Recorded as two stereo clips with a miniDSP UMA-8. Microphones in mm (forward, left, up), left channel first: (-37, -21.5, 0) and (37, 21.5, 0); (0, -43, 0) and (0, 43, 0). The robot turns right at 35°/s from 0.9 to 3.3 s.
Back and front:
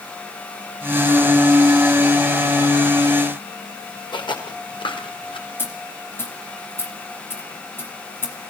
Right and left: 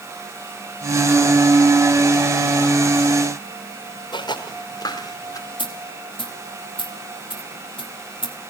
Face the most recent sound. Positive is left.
turn(degrees=-85)